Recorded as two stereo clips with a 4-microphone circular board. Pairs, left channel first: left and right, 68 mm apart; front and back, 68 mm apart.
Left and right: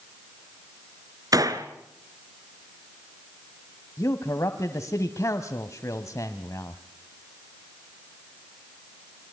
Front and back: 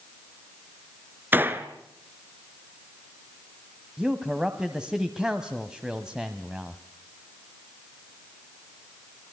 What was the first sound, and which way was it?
A gunshot, 120° right.